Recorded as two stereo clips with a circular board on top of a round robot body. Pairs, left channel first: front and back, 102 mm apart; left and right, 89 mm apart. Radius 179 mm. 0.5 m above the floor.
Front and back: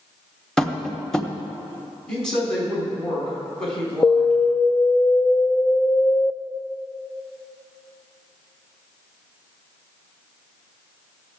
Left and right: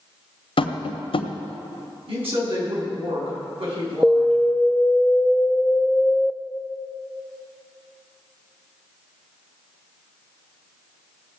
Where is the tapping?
85° left, 1.2 m.